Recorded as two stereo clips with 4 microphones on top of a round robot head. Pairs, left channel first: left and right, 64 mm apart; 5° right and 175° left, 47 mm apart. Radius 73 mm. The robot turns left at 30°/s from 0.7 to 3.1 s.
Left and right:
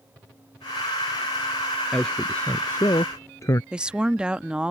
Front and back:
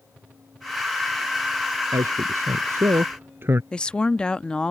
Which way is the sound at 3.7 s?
40° right.